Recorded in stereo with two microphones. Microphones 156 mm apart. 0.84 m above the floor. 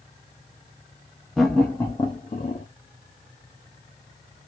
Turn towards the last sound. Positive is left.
turn(degrees=50)  # may be behind; listen again after turning